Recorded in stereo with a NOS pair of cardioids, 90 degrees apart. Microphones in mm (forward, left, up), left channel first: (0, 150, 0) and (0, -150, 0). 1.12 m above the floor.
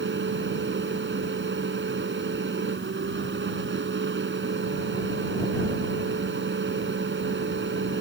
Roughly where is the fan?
Ahead right.